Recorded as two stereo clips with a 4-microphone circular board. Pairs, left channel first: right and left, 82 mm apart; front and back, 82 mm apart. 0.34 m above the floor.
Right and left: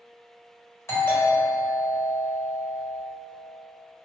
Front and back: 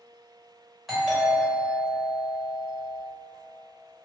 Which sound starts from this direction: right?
A doorbell, at 0.9 s.